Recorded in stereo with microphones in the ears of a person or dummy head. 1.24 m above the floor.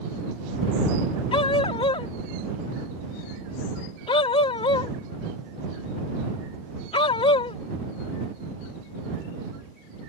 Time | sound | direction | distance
1.3 | a dog barking | 30° left (ahead or behind) | ?